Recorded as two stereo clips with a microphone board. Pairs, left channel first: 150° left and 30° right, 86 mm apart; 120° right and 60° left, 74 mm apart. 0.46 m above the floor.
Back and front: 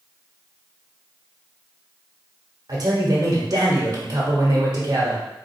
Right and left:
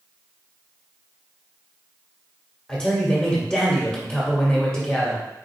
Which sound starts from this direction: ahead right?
A man speaking, at 2.7 s.